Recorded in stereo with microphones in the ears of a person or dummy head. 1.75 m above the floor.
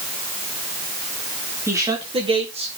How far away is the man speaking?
About 4 m.